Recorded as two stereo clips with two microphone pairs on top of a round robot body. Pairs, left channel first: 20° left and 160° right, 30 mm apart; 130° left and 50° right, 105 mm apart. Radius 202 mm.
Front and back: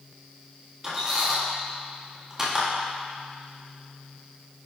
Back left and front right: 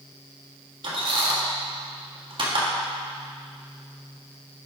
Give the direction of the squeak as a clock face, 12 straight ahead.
3 o'clock.